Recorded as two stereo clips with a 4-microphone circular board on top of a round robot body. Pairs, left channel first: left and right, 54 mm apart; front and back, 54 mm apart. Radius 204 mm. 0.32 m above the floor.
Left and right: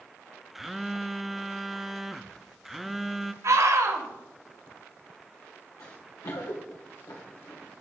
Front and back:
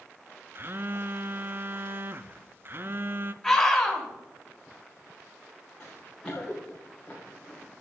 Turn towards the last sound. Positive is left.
turn(degrees=75)